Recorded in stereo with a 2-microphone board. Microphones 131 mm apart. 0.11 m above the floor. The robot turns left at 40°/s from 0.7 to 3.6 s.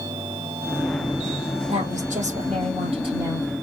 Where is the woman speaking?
80° right, 3.5 m; by 3.5 s 150° right, 3.5 m.